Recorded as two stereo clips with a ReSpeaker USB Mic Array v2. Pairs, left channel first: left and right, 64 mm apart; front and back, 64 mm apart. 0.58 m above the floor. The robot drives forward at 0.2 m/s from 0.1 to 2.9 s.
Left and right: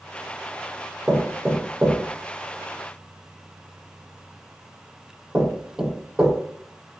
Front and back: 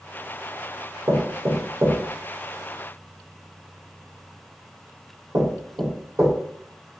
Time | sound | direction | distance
1.1 | knocking | 160° right | 1.2 m